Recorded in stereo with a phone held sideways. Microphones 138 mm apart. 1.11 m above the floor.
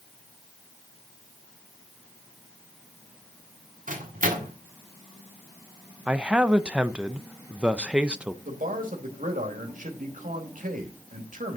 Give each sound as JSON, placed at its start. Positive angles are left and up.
{"t": 3.9, "sound": "a microwave", "side_deg": -75, "distance_m": 2.0}
{"t": 6.1, "sound": "a man speaking", "side_deg": -10, "distance_m": 0.6}
{"t": 8.4, "sound": "a man speaking", "side_deg": -75, "distance_m": 2.5}